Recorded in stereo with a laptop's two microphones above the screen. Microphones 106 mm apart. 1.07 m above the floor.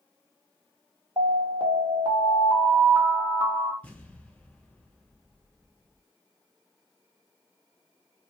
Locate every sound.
1.2 s an alarm: 55° right (ahead or behind), 0.7 m
3.8 s an explosion: 10° left (ahead or behind), 1.7 m